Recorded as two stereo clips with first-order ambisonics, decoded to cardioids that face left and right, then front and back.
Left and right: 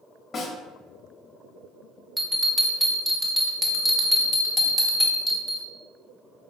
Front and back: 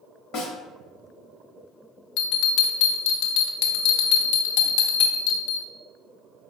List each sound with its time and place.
0.3 s a snare drum: 30° left, 1.1 m
2.2 s a bell: straight ahead, 0.7 m